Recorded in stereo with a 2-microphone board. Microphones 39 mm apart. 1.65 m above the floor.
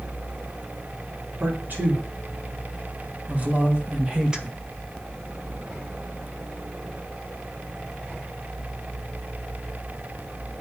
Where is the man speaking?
50° right (ahead or behind), 4 m; by 4.6 s 15° right (ahead or behind), 1.5 m.